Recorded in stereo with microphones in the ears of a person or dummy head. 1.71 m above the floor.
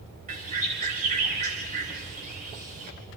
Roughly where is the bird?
Right.